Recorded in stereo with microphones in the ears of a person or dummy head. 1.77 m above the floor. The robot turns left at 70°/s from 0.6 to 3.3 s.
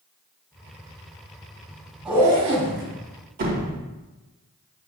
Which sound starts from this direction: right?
A door slam, at 3.4 s.